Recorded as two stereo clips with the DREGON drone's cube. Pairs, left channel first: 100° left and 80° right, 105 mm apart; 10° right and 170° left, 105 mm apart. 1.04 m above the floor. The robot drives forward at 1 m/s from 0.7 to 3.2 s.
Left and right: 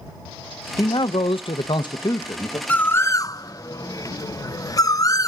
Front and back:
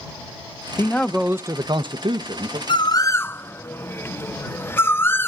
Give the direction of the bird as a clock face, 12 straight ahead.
11 o'clock.